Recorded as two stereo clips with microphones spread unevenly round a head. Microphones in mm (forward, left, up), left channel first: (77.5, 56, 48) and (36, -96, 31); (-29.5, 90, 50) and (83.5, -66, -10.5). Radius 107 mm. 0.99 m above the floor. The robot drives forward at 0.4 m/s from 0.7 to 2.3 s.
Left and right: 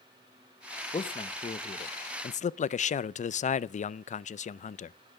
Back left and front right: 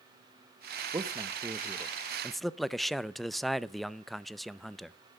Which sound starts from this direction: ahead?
A man speaking, at 0.9 s.